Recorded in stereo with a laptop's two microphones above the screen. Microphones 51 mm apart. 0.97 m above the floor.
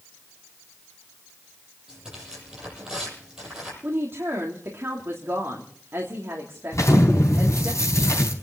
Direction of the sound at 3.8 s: 50° right (ahead or behind).